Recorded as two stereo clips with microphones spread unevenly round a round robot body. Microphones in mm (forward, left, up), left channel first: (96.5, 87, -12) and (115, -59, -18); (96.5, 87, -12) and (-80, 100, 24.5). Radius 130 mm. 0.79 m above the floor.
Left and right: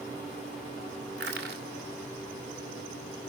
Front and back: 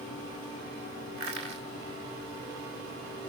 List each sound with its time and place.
1.2 s crushing: 110° right, 1.9 m